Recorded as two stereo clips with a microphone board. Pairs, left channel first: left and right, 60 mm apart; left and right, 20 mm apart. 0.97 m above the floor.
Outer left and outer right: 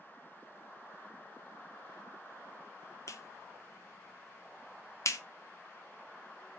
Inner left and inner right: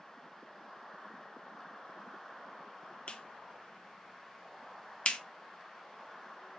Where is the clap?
60° left (ahead or behind), 0.9 m.